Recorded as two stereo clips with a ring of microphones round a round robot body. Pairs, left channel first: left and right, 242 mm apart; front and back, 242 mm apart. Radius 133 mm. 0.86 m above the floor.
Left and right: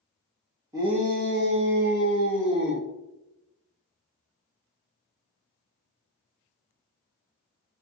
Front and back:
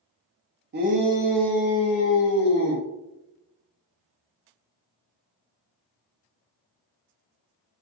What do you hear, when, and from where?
0.7 s a shout: 165° right, 0.5 m; by 2.9 s 50° right, 1.3 m